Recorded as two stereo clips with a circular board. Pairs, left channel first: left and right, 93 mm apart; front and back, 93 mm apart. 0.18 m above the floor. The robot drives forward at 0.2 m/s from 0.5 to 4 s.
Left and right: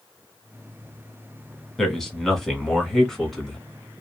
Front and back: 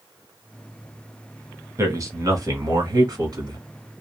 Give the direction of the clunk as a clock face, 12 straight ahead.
I don't hear a clunk.